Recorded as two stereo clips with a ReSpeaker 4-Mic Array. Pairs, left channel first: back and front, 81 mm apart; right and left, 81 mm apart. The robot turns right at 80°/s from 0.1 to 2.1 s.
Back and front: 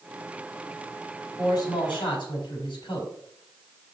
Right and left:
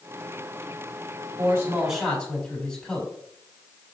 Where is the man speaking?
135° left, 4 m; by 3.1 s 165° right, 4 m.